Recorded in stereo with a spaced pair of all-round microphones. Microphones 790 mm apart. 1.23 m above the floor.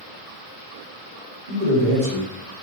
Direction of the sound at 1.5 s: 75° right (ahead or behind).